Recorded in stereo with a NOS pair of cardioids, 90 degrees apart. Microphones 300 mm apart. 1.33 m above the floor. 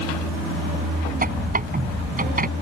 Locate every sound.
1.2 s a squeak: 30° right